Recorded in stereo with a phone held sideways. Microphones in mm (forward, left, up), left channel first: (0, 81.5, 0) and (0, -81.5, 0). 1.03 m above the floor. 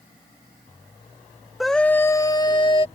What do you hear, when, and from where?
1.6 s a scream: centre (ahead or behind); by 2.9 s 35° left (ahead or behind)